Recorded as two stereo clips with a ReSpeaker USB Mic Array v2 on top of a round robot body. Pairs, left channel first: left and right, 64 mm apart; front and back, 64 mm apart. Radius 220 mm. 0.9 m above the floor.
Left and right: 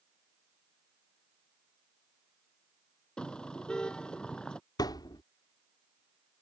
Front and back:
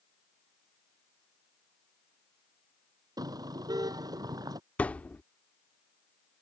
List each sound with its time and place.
3.2 s a car horn: 165° left
4.8 s a thud: 70° left